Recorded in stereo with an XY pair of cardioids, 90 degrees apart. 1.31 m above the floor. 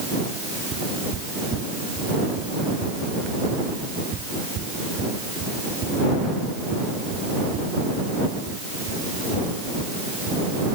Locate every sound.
0.7 s footsteps: 65° right